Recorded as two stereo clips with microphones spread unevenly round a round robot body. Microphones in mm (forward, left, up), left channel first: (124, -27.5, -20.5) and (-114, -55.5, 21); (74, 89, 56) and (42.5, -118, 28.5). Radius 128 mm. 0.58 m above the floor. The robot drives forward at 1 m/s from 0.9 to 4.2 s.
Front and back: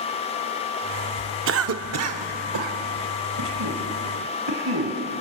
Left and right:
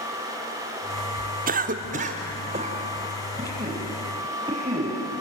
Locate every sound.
1.5 s a cough: 135° right, 1.2 m; by 5.0 s 170° right, 3.5 m